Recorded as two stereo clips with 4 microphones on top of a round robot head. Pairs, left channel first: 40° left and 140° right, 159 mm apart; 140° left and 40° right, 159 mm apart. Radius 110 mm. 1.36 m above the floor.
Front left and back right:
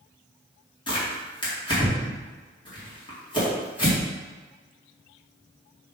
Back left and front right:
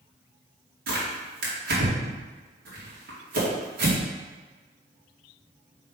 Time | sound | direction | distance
0.9 | tearing paper | 20° right | 2.5 m